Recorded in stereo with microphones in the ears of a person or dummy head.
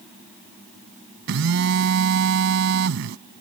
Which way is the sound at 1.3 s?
70° right (ahead or behind).